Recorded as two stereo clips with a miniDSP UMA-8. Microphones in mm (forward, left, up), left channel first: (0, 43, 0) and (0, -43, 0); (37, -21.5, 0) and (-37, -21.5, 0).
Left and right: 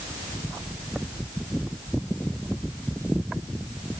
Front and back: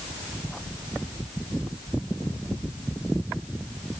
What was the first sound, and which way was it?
Only background noise.